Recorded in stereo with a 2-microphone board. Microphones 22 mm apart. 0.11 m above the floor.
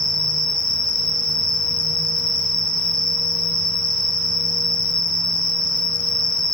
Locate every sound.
0.0 s an insect: 15° right (ahead or behind), 1.2 m